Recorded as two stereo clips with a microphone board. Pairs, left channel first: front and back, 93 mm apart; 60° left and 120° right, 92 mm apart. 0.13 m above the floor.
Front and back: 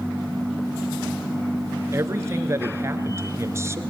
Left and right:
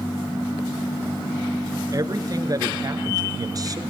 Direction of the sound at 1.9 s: 135° right.